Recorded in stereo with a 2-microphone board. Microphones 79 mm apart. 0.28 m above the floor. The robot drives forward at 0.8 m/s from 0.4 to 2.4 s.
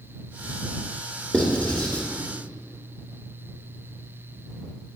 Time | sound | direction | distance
1.3 | writing | 15° left (ahead or behind) | 2 m